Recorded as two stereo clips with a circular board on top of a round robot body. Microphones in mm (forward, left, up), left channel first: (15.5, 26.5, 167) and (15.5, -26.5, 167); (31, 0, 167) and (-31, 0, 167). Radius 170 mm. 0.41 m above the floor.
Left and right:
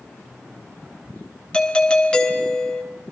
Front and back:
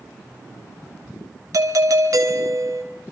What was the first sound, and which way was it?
A doorbell, 165° left.